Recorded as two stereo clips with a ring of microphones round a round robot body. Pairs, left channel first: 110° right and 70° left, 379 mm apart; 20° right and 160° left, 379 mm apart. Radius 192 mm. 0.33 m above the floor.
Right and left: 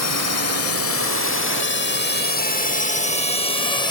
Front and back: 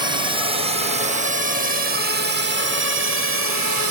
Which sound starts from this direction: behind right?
A drone, at 0.0 s.